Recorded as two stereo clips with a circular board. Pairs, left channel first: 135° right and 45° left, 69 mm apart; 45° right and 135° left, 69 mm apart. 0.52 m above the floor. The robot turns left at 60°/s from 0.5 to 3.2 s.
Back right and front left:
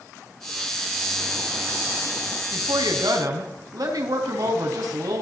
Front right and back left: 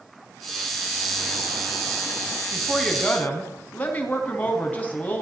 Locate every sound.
2.5 s a woman speaking: 65° left, 4.5 m; by 5.2 s 20° left, 4.5 m